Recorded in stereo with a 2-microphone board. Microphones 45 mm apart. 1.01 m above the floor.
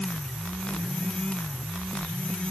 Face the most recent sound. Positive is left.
No sound to turn to.